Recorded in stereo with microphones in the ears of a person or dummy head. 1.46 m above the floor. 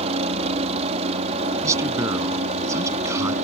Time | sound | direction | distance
0.0 | a helicopter | 35° right (ahead or behind) | ?
1.6 | a man speaking | 15° right (ahead or behind) | ?